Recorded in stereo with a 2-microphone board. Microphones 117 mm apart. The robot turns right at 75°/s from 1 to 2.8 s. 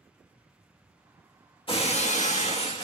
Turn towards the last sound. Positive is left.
turn(degrees=130)